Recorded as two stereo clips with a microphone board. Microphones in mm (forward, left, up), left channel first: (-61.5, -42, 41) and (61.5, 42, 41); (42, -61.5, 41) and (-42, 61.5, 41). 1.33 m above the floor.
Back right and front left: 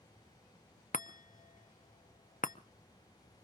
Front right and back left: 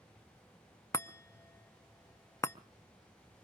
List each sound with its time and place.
0.9 s a chime: 125° right, 0.6 m